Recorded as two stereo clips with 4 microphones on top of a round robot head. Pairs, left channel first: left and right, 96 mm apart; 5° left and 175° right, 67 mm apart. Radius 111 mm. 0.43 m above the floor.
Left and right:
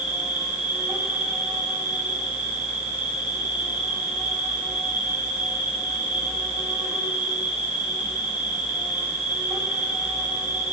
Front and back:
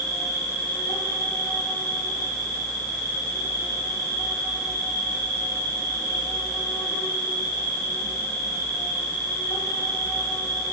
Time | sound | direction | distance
0.0 | an insect | 20° right | 5 m